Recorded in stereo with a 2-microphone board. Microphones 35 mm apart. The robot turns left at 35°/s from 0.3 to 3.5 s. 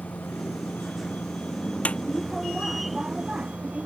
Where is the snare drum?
40° left (ahead or behind); by 2.0 s 35° left (ahead or behind).